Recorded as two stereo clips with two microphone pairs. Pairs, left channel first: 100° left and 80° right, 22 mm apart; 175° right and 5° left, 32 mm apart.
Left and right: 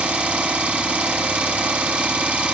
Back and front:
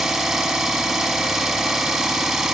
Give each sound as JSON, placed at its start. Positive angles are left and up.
{"t": 0.0, "sound": "an engine running", "azimuth_deg": -75, "distance_m": 1.0}